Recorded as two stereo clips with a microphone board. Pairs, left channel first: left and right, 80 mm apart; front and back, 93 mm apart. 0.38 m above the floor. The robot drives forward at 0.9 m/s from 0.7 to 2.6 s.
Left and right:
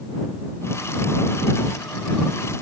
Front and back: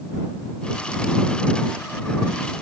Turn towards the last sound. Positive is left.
No sound to turn to.